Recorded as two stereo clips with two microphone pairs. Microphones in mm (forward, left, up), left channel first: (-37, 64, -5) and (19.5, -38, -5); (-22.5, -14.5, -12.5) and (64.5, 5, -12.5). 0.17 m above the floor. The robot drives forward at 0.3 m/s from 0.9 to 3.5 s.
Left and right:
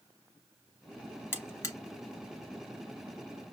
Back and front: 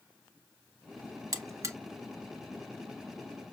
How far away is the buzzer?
About 0.7 m.